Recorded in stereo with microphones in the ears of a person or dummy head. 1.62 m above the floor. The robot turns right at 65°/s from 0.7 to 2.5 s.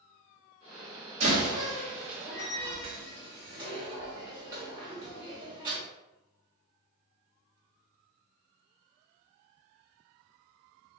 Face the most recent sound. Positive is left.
turn(degrees=-25)  # may be behind; listen again after turning